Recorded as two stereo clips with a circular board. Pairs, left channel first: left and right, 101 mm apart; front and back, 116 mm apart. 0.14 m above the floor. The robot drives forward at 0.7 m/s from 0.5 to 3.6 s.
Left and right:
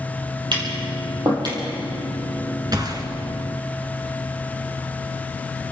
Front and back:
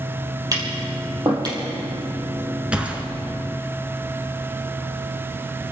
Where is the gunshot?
105° right, 1.8 m; by 3.0 s 110° right, 1.9 m.